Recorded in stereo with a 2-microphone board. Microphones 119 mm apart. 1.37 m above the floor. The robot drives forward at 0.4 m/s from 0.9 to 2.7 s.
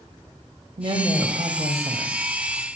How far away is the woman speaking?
About 1.6 m.